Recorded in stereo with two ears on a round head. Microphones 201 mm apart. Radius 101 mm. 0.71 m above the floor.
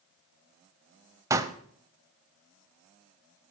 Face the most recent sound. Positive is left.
turn(degrees=-15)  # may be behind; listen again after turning